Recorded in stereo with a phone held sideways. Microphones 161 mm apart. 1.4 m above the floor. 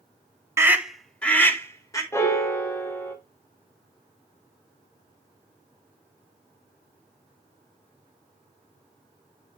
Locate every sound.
0.6 s a scream: 15° right (ahead or behind), 0.7 m; by 2.0 s 20° left (ahead or behind), 1.6 m
2.1 s a piano: 15° left (ahead or behind), 1.0 m